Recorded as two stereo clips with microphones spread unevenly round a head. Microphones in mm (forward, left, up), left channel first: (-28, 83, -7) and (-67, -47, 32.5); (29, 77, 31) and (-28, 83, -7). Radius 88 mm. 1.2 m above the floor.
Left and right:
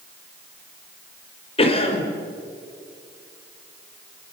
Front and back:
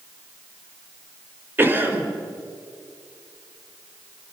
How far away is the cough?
About 4.5 m.